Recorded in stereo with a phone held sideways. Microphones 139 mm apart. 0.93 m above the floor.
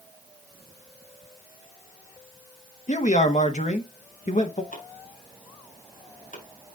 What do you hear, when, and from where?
2.9 s a man speaking: 60° left (ahead or behind), 1.0 m
4.7 s chopping: 80° left, 4.5 m